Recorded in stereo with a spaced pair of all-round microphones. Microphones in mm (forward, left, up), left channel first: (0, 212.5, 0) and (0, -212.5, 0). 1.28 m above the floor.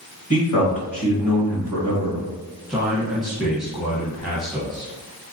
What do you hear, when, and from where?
0.3 s a man speaking: 35° left (ahead or behind), 1.7 m
2.7 s a man speaking: centre (ahead or behind), 0.8 m